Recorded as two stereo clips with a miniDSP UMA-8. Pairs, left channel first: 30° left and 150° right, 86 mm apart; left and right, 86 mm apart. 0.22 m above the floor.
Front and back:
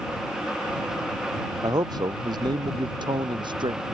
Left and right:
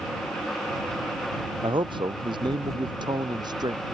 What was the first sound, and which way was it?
A man speaking, 110° right.